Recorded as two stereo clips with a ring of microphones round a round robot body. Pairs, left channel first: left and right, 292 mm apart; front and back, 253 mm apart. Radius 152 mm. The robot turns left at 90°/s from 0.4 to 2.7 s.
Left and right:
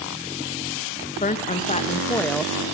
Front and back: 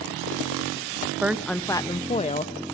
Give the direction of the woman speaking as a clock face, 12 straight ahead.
8 o'clock.